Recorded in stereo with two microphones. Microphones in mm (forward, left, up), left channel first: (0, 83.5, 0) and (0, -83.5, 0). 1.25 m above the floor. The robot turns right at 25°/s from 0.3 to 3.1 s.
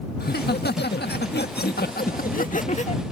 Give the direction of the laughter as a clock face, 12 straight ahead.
10 o'clock.